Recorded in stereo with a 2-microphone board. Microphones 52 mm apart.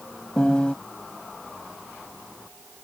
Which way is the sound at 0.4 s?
15° left (ahead or behind).